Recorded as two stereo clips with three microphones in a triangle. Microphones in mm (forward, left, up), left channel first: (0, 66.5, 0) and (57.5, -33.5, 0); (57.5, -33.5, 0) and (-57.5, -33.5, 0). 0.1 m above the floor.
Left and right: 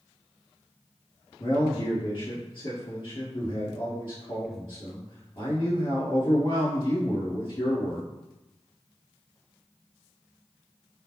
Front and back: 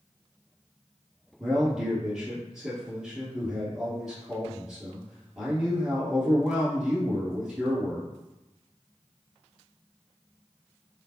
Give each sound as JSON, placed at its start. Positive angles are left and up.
{"t": 1.4, "sound": "a man speaking", "azimuth_deg": 95, "distance_m": 2.0}